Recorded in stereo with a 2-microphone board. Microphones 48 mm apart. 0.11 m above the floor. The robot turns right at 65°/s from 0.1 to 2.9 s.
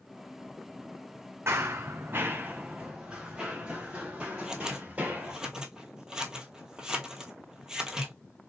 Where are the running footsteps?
65° right (ahead or behind), 0.5 m; by 5.4 s 35° right (ahead or behind), 2.5 m.